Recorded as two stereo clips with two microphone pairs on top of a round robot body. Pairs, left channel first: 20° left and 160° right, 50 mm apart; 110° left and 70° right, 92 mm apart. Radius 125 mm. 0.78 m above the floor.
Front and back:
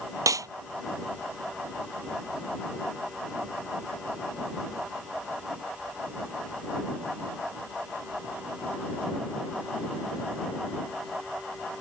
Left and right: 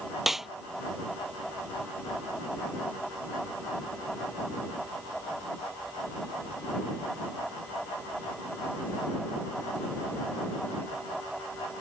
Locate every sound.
0.3 s a snare drum: 155° right